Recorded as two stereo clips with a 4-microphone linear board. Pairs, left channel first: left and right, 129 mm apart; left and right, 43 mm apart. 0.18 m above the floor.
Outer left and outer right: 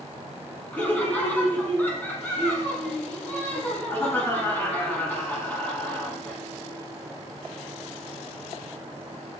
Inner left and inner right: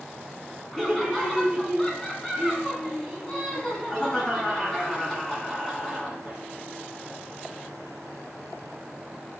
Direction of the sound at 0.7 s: 15° left (ahead or behind).